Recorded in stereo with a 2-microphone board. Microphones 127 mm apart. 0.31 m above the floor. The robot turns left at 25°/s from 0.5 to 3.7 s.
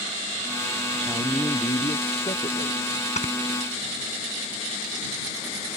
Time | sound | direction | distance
1.0 | a man speaking | 160° left | ?
3.2 | snoring | 65° left (ahead or behind) | ?